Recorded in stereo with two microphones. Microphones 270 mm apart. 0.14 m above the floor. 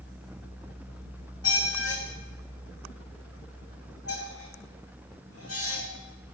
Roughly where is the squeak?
Left.